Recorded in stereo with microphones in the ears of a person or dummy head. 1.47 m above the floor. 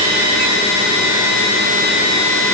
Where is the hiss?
No hiss in this recording.